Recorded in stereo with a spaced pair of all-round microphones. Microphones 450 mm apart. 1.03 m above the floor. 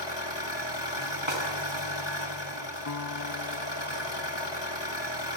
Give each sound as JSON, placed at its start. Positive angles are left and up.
{"t": 0.0, "sound": "an engine running", "side_deg": 65, "distance_m": 6.0}
{"t": 1.3, "sound": "a snare drum", "side_deg": -85, "distance_m": 7.0}
{"t": 2.9, "sound": "a guitar", "side_deg": 45, "distance_m": 0.7}